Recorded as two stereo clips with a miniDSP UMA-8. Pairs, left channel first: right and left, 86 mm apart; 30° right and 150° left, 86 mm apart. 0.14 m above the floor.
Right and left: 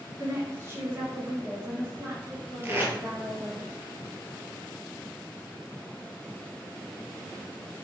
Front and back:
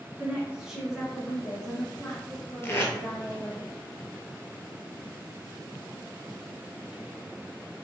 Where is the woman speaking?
100° left, 1.5 m; by 3.6 s 25° left, 3 m.